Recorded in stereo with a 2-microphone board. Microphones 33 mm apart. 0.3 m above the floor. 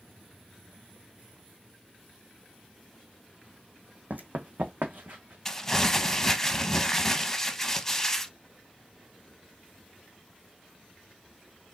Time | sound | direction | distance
4.1 | running footsteps | 65° right (ahead or behind) | 0.9 m
5.5 | crumpling | 15° left (ahead or behind) | 0.6 m